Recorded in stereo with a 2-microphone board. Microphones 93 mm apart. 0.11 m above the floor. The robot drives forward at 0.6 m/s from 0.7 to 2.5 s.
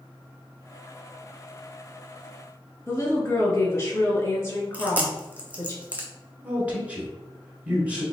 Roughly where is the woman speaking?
Left.